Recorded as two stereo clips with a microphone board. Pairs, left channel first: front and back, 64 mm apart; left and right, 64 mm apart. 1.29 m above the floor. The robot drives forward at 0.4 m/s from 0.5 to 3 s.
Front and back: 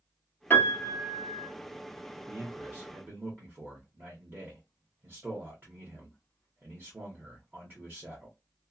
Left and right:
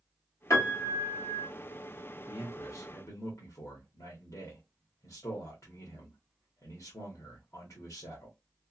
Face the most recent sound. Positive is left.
turn(degrees=125)